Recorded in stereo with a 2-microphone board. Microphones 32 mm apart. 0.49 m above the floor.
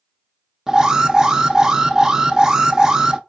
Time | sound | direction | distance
0.7 | an alarm | 25° right (ahead or behind) | 0.6 m